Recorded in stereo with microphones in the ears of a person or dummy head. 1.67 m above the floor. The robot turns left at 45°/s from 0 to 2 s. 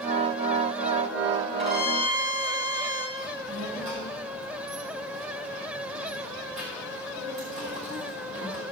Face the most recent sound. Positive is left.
turn(degrees=-50)  # may be behind; listen again after turning